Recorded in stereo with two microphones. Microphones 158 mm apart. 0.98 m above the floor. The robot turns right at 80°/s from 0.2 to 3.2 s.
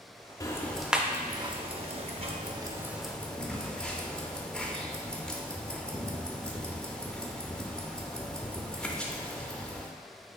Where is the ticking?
25° left (ahead or behind), 0.6 m; by 9.9 s 5° left (ahead or behind), 0.6 m.